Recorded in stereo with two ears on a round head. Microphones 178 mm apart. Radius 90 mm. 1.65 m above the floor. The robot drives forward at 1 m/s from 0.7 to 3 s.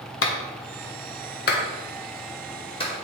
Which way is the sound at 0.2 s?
70° left (ahead or behind).